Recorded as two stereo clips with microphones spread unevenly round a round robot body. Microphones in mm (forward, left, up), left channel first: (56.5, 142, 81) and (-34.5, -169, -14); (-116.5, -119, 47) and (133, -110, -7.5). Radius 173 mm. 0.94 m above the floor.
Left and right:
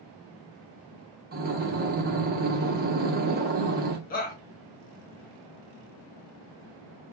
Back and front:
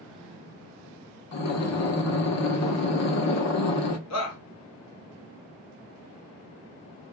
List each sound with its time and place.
1.3 s breathing: 175° right, 0.9 m
4.1 s a shout: 145° left, 0.9 m